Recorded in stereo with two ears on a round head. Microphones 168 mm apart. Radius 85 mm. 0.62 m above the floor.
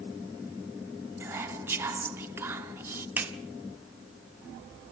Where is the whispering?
15° right (ahead or behind), 1.2 m.